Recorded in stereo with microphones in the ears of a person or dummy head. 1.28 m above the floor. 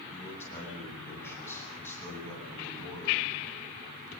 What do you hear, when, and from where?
0.1 s a man speaking: 15° left (ahead or behind), 9.5 m